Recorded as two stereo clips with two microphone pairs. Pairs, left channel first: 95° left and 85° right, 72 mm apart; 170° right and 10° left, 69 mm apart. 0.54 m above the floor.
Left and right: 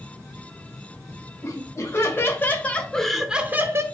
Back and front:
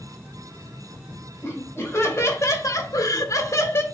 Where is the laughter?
140° left, 2.5 m; by 3.8 s 120° right, 1.1 m.